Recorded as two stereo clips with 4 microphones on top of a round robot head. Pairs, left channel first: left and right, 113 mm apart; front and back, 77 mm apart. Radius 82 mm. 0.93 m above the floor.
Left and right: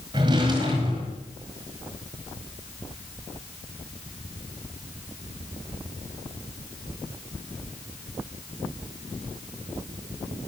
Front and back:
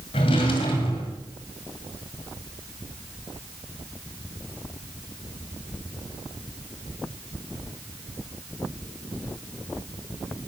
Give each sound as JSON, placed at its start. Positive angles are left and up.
{"t": 0.1, "sound": "a drawer", "azimuth_deg": -30, "distance_m": 1.9}